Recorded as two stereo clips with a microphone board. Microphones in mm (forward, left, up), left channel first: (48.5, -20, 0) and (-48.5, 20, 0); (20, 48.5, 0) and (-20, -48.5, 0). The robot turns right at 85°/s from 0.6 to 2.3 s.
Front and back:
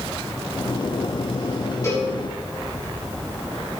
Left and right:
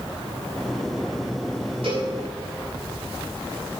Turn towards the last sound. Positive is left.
turn(degrees=-45)